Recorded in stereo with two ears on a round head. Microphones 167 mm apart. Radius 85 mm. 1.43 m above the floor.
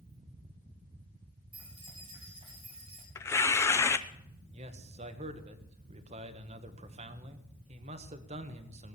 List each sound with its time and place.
1.5 s keys jangling: 30° right (ahead or behind), 9.5 m; by 3.0 s 35° right (ahead or behind), 8 m
3.1 s tearing paper: 15° left (ahead or behind), 0.7 m
4.5 s a man speaking: 35° right (ahead or behind), 1.5 m